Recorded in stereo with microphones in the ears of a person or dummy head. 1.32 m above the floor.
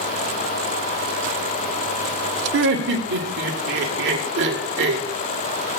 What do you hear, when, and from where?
2.5 s laughter: 60° right (ahead or behind), 1.3 m